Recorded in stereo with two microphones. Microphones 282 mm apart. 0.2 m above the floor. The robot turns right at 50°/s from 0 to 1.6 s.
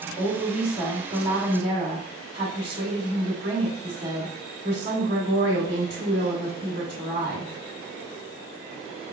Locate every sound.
0.2 s a woman speaking: 130° left, 1.8 m; by 7.5 s 160° right, 1.8 m